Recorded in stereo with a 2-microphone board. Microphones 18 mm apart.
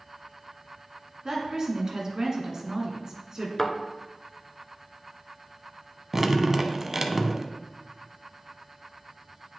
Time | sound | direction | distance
1.2 | a woman speaking | 35° right (ahead or behind) | 1.7 m
3.6 | a thud | 25° left (ahead or behind) | 0.9 m
6.1 | dripping | 20° right (ahead or behind) | 0.7 m